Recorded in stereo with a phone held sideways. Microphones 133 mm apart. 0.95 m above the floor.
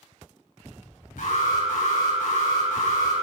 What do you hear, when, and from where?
1.2 s an alarm: 80° left, 4.5 m